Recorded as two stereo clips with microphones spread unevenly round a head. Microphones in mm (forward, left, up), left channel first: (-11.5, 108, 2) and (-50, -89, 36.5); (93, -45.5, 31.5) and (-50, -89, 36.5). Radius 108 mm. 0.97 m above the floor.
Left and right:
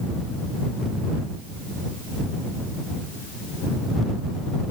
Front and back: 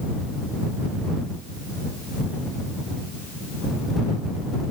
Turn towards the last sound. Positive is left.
No sound to turn to.